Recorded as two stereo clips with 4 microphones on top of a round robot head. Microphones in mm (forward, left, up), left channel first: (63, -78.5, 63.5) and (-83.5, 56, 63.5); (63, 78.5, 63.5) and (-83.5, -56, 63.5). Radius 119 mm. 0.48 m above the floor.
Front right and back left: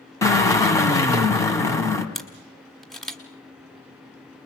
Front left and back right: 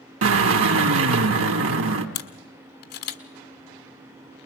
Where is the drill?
120° right, 2.5 m.